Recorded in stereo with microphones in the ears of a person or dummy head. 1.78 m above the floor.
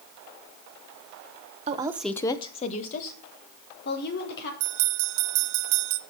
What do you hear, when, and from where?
1.7 s a woman speaking: 35° right (ahead or behind), 0.9 m; by 4.5 s 55° left (ahead or behind), 4 m
4.6 s a bell: 60° right (ahead or behind), 0.6 m